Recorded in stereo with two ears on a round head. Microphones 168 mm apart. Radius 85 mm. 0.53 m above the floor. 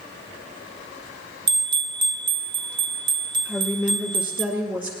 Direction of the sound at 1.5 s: 25° right (ahead or behind).